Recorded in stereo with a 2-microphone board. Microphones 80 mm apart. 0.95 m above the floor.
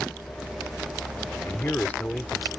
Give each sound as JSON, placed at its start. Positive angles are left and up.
{"t": 1.4, "sound": "a man speaking", "side_deg": 25}